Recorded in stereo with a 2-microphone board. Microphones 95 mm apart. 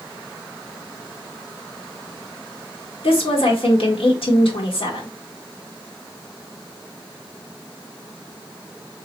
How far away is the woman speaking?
About 1.8 m.